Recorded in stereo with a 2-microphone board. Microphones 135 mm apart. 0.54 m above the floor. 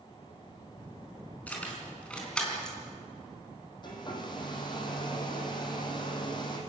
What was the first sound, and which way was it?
Keys jangling, 10° left (ahead or behind).